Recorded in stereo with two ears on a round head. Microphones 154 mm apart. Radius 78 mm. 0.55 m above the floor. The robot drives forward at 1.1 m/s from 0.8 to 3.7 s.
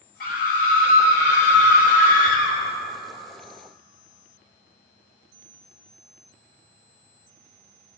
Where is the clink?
I don't hear a clink.